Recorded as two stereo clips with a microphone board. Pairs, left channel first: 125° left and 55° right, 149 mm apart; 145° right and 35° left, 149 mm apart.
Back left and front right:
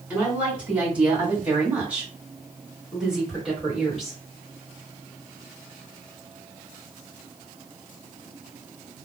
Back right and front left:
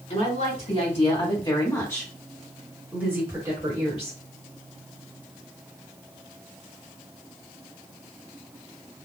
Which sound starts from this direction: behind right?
A woman speaking, at 0.1 s.